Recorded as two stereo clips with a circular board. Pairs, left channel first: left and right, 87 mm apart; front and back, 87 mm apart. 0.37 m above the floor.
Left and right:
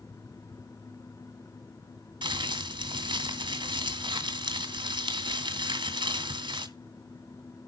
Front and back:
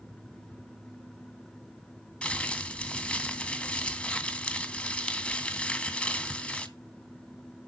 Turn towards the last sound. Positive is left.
turn(degrees=-75)